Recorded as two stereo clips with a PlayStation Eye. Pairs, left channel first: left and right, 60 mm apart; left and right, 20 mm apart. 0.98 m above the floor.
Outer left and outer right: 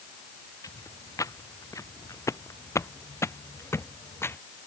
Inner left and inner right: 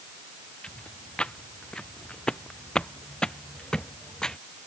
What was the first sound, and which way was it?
Footsteps, 70° left (ahead or behind).